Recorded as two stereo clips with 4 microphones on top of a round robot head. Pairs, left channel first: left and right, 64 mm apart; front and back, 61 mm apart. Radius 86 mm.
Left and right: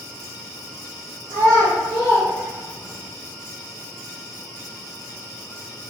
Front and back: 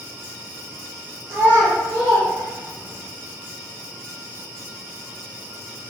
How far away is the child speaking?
About 1.5 m.